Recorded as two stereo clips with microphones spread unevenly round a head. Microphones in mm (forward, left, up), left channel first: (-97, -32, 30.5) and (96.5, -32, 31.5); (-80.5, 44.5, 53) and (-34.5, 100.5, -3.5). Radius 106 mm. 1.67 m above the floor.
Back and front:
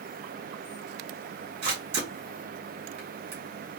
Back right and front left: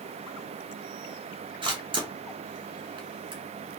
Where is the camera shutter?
65° left, 2.5 m.